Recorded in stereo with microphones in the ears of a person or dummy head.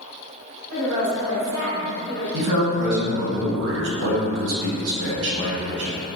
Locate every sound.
0.7 s a woman speaking: 40° right (ahead or behind), 1.4 m; by 2.2 s 45° right (ahead or behind), 0.8 m
2.3 s a man speaking: 65° right (ahead or behind), 0.8 m